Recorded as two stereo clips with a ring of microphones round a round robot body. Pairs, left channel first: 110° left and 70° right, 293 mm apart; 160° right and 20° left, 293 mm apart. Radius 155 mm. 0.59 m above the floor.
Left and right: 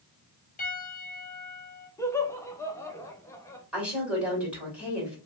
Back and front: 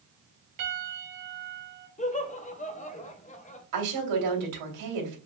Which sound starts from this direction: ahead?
A woman speaking, at 3.7 s.